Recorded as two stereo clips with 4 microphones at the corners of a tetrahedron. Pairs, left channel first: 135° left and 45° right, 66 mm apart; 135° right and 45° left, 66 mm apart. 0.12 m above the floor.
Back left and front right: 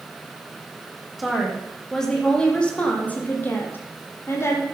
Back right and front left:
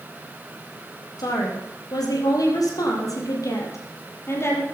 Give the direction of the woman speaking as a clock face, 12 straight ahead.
4 o'clock.